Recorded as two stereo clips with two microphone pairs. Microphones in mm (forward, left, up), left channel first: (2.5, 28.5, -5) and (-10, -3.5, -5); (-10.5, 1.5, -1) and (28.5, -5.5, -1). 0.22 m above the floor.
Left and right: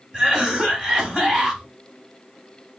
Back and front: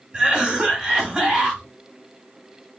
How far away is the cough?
About 1.2 m.